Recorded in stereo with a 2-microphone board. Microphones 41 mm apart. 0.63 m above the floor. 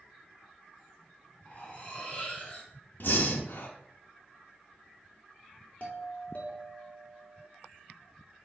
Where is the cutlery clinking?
30° left (ahead or behind), 3 m.